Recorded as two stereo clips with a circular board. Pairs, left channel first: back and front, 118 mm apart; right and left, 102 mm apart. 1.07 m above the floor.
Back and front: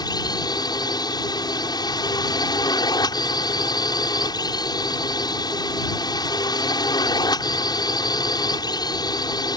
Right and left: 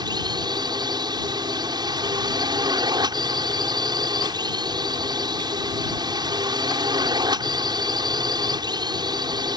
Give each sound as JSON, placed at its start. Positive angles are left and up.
{"t": 0.0, "sound": "a drone", "azimuth_deg": 130}